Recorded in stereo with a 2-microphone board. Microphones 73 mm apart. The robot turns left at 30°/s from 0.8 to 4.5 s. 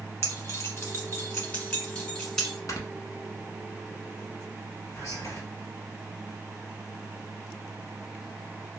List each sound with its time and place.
0.2 s keys jangling: 35° left (ahead or behind), 1.3 m; by 2.6 s 5° left (ahead or behind), 1.3 m
2.7 s snoring: 50° left (ahead or behind), 0.7 m
5.0 s whispering: 45° left (ahead or behind), 1.8 m